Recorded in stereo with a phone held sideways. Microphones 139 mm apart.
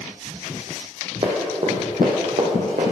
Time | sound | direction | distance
1.2 | running footsteps | 40° right (ahead or behind) | 1.8 m